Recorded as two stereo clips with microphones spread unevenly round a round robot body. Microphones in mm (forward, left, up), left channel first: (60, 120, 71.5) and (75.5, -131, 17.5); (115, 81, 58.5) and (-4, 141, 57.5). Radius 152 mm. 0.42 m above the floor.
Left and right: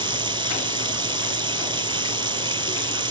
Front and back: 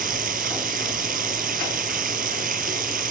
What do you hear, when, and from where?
0.0 s running water: 160° right